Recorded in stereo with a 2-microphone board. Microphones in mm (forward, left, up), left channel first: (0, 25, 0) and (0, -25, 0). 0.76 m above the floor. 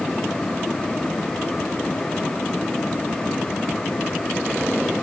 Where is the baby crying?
No baby crying in this recording.